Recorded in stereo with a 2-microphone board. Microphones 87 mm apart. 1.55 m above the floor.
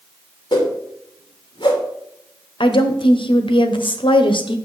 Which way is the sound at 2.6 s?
75° left (ahead or behind).